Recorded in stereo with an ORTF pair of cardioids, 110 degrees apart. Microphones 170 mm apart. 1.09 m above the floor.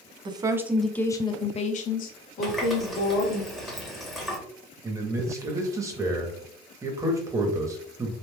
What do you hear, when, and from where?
0.2 s a woman speaking: 30° right, 0.6 m; by 3.4 s 75° left, 1.4 m
2.4 s a running tap: straight ahead, 1.1 m
4.8 s a man speaking: 20° right, 1.0 m